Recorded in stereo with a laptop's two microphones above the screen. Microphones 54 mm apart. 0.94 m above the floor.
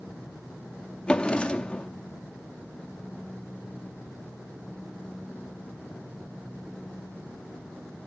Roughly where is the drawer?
Centre.